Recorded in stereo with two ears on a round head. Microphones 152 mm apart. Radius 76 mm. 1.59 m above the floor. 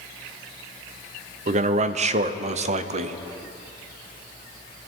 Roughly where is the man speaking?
Right.